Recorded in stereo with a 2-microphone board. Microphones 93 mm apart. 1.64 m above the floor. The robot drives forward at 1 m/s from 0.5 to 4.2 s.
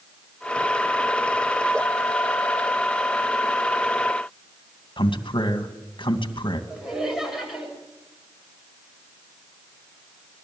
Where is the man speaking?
60° left (ahead or behind), 2.5 m.